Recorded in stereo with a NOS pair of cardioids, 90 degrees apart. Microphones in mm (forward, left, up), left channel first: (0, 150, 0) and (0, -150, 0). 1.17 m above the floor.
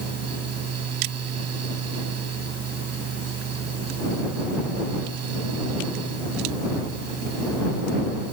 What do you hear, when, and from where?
0.0 s a fan: 55° right